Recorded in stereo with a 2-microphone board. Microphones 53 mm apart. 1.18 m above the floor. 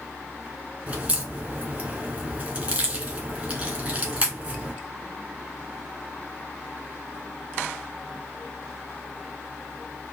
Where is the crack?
30° right (ahead or behind), 1.6 m.